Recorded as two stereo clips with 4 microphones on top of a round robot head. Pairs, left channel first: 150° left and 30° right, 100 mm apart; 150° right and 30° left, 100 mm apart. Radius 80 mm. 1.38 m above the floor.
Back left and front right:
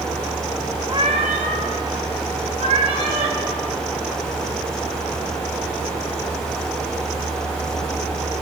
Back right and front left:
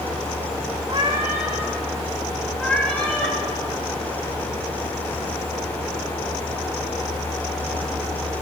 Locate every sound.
0.9 s a cat meowing: 10° left, 0.8 m; by 3.4 s 70° right, 2.5 m